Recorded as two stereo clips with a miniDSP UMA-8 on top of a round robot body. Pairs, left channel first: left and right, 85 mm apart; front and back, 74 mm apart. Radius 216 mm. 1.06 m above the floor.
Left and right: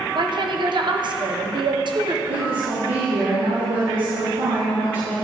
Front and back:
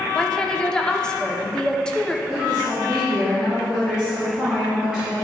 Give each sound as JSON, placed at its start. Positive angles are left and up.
{"t": 0.1, "sound": "a woman speaking", "azimuth_deg": -80, "distance_m": 1.2}
{"t": 2.3, "sound": "a woman speaking", "azimuth_deg": -100, "distance_m": 2.5}